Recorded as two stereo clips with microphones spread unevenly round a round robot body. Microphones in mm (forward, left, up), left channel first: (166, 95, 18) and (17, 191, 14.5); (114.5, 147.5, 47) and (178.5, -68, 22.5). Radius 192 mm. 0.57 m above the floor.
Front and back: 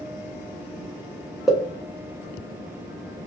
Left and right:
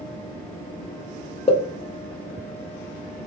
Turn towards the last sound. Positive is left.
turn(degrees=65)